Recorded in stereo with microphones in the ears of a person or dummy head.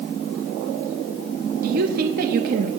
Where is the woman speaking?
45° right (ahead or behind), 0.7 m.